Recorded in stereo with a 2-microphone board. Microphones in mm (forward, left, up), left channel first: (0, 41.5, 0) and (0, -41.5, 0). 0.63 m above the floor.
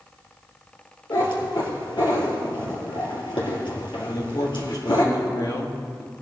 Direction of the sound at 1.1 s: 80° left.